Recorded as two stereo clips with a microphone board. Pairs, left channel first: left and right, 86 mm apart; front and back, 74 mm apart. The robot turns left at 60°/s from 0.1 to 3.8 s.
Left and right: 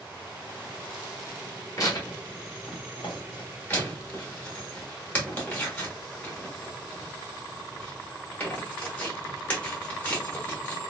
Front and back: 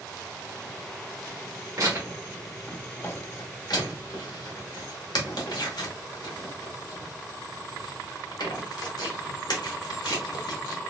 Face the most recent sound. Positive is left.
turn(degrees=20)